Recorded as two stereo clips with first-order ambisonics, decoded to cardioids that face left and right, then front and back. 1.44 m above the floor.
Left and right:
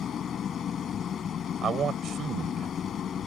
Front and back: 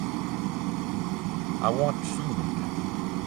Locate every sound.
0.0 s an engine running: 155° left
1.6 s a man speaking: 155° right